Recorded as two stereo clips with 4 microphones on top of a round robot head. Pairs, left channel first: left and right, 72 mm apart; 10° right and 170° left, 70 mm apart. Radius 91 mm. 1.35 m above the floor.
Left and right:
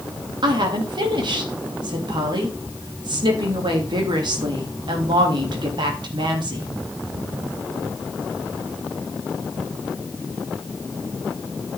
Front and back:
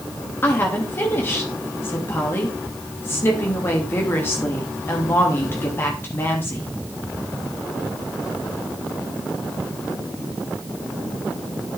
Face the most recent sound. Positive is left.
turn(degrees=-70)